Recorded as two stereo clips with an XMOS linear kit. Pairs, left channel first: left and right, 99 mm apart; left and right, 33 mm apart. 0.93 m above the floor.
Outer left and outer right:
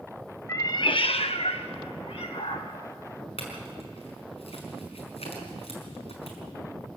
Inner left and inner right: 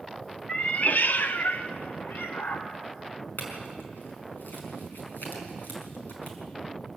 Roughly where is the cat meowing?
Left.